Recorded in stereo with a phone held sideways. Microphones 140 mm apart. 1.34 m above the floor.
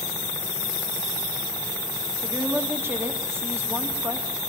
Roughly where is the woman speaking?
Centre.